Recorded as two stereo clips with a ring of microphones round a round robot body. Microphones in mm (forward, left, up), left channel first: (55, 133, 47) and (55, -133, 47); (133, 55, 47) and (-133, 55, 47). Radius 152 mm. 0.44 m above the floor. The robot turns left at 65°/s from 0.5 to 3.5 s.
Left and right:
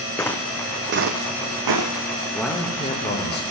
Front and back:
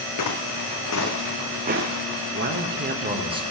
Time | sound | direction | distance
0.2 | footsteps | 10° left | 1.4 m
2.3 | a man speaking | 175° right | 1.5 m